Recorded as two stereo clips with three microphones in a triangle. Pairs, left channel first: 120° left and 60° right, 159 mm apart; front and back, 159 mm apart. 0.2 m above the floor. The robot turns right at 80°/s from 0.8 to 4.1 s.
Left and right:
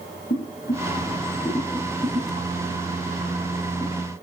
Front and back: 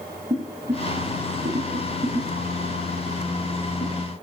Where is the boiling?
130° left, 5.5 m; by 4.0 s 20° left, 5.5 m.